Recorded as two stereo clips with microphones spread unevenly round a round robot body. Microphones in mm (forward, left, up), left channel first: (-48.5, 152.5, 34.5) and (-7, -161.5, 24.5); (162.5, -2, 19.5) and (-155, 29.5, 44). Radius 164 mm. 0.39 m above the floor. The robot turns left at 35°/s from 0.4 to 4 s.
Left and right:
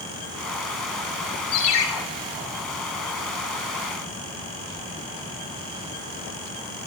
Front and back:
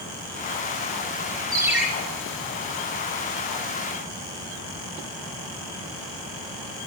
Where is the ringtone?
95° left, 3 m; by 1.9 s 85° left, 3 m.